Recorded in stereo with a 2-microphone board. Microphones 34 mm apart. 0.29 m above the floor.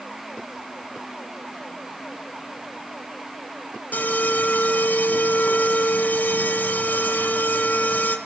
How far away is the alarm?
About 2.0 m.